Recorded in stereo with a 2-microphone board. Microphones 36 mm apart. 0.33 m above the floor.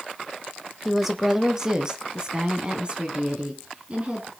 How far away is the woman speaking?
About 1.1 m.